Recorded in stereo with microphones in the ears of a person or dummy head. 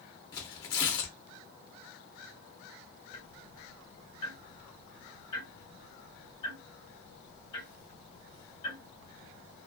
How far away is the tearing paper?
About 0.7 m.